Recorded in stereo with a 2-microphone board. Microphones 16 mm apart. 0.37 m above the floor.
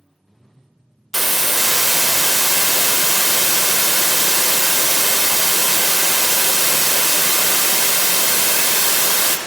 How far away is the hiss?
About 0.5 m.